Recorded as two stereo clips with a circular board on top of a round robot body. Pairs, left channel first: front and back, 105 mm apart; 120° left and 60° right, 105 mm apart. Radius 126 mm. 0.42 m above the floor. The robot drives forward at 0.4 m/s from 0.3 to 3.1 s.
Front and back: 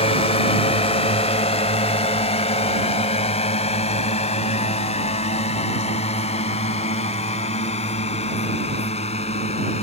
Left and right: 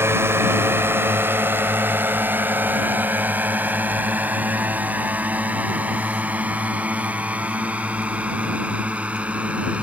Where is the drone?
5° left; by 9.8 s 20° left.